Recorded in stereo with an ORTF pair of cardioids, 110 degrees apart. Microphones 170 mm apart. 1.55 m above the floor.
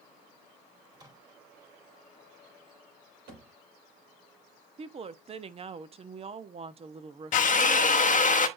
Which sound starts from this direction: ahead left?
A drill, at 7.3 s.